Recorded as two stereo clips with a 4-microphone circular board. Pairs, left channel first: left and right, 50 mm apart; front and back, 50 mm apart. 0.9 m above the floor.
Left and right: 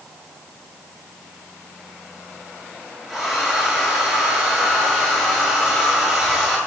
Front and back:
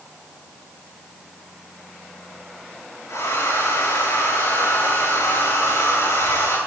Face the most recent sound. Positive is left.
turn(degrees=5)